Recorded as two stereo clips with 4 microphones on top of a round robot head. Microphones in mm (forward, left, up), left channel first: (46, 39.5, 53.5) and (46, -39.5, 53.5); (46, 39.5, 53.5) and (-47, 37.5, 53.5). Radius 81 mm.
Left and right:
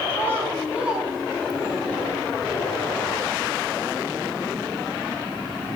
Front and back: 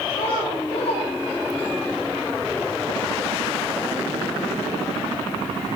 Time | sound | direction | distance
0.1 | a child speaking | 30° right | 1.9 m